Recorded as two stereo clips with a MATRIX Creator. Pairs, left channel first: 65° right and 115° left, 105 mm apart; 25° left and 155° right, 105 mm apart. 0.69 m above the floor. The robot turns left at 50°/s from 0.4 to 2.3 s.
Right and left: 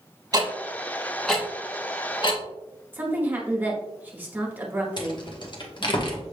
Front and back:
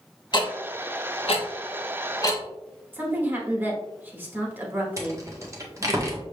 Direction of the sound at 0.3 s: 65° left.